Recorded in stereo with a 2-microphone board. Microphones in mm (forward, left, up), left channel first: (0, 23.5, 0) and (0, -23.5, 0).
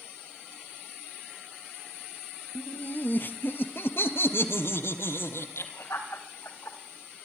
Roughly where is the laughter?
Left.